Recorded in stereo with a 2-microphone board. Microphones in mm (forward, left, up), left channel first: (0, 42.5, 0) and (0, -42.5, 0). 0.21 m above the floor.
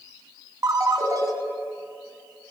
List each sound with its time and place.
0.6 s a ringtone: 45° right (ahead or behind), 1.0 m